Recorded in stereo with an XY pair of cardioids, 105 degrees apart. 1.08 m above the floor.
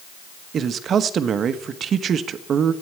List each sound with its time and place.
0.5 s a man speaking: 55° right, 1.1 m